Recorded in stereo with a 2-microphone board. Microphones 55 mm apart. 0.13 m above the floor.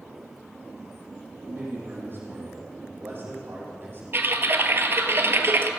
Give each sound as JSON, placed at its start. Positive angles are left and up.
{"t": 1.5, "sound": "a man speaking", "side_deg": -40, "distance_m": 4.5}
{"t": 4.1, "sound": "typing on a keyboard", "side_deg": -45, "distance_m": 0.8}